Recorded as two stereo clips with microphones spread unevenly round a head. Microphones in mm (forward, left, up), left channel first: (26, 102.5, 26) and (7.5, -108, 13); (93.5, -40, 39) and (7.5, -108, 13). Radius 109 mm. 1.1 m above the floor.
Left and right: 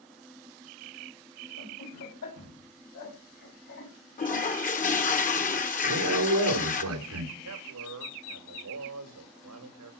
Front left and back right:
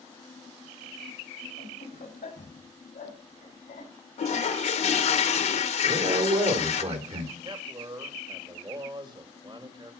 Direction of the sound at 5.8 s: 120° right.